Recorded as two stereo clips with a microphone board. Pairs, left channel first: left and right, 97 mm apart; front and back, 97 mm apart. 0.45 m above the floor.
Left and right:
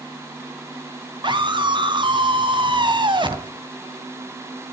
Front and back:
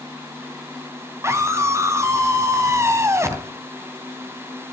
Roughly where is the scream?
Behind right.